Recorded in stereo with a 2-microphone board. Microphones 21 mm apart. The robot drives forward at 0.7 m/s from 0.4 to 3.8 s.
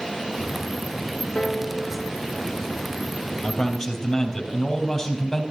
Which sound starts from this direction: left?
A piano, at 1.4 s.